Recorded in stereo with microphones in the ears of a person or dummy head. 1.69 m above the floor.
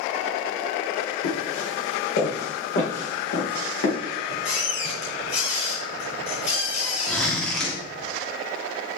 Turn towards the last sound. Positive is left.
turn(degrees=10)  # may be behind; listen again after turning